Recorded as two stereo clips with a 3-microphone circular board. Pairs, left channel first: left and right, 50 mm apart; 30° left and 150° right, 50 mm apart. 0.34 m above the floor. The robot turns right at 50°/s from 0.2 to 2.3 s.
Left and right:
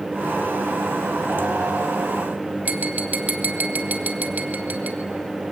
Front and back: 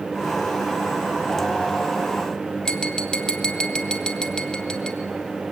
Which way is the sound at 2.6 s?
45° right.